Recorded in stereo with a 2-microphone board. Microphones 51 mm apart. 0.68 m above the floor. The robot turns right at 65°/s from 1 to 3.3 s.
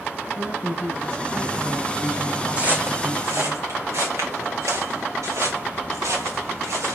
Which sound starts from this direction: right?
Footsteps, at 2.6 s.